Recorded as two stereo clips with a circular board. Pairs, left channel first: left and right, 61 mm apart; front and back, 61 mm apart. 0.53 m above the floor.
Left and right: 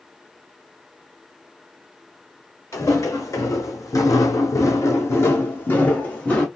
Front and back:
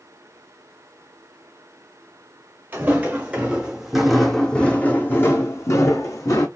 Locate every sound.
2.7 s footsteps: 125° left, 1.5 m; by 6.5 s 20° left, 1.5 m